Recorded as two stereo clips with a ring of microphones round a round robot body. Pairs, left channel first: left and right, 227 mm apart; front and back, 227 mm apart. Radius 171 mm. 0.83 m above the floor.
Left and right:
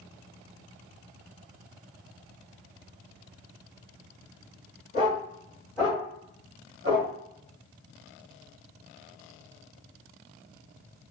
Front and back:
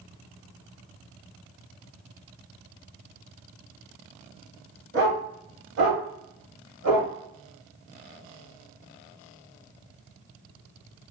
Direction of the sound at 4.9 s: 155° left.